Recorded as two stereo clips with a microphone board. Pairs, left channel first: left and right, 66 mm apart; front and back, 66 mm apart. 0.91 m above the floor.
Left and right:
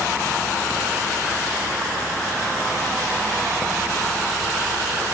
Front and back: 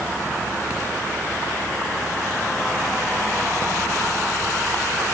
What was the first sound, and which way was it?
Only background noise.